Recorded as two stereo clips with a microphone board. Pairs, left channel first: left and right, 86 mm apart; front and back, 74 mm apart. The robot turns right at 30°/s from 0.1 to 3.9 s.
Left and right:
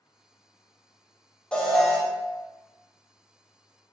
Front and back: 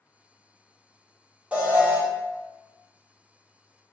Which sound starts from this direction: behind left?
An alarm, at 1.5 s.